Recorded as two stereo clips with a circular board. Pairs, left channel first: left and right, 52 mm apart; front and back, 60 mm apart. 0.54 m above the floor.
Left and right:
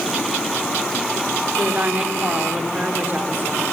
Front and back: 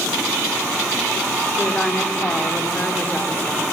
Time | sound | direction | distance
1.6 | a woman speaking | 55° right | 1.5 m